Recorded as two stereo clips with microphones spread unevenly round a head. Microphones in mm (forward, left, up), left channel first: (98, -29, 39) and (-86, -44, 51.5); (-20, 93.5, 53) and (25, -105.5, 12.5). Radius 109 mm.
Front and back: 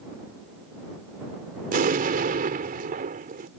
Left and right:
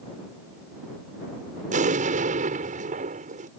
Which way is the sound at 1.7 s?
135° right.